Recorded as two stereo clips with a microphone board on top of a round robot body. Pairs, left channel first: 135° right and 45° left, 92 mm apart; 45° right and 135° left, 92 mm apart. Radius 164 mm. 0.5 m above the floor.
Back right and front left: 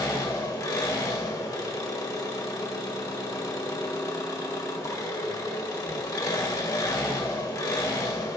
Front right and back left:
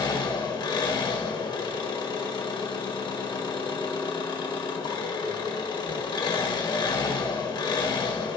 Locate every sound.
0.0 s an engine running: 80° right, 1.5 m